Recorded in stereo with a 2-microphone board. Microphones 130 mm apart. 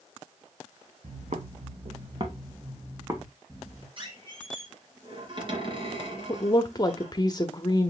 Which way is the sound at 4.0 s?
40° right (ahead or behind).